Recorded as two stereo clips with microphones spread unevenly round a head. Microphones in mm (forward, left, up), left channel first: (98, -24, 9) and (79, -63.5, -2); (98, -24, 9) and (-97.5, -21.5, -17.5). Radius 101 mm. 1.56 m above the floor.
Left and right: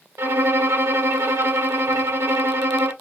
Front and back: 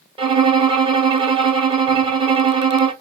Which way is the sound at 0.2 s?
115° right.